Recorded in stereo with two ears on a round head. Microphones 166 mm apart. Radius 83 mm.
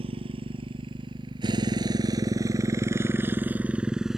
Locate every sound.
0.0 s a motorcycle: 30° right (ahead or behind); by 4.2 s centre (ahead or behind)